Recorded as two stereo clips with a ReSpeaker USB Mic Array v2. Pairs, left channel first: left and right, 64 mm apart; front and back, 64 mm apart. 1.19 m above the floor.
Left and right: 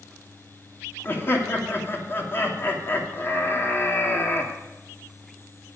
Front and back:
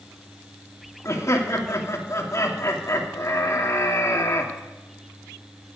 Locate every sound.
1.1 s laughter: 40° left, 2.5 m